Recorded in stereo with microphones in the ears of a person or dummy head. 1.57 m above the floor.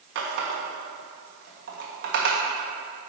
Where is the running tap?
65° right (ahead or behind), 1.5 m.